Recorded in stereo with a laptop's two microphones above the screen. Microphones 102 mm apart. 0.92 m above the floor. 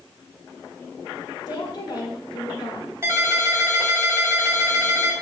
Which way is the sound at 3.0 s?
25° right (ahead or behind).